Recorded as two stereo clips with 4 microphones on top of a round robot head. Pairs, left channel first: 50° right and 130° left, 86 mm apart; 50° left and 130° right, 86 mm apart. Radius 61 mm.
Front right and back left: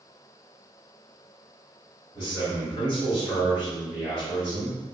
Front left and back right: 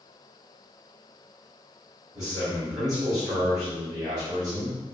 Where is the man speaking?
80° right, 2.0 m.